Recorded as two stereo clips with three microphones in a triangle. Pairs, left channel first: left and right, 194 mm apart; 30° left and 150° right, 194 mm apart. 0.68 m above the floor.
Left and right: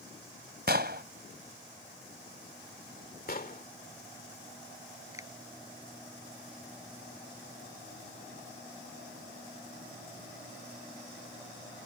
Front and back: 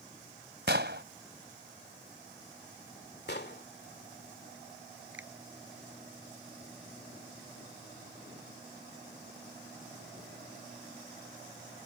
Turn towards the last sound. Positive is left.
turn(degrees=-165)